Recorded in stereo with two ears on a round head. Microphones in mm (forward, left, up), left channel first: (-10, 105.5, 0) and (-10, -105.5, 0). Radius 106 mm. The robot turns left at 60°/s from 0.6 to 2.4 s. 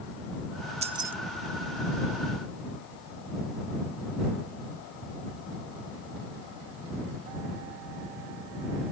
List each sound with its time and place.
0.8 s keys jangling: 30° right (ahead or behind); by 1.1 s 10° right (ahead or behind)